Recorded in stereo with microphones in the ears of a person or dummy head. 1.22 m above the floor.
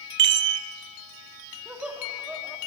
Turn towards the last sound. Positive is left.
turn(degrees=0)  # may be behind; listen again after turning